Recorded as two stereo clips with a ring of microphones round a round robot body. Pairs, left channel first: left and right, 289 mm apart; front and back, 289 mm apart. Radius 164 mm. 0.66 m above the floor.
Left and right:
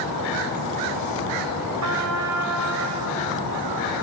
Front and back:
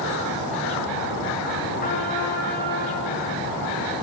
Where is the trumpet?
65° right, 2 m.